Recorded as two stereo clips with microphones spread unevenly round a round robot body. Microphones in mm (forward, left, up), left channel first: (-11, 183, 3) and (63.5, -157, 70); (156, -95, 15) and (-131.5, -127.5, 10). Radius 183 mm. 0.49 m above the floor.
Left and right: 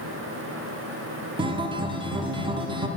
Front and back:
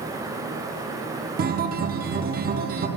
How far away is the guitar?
About 0.6 m.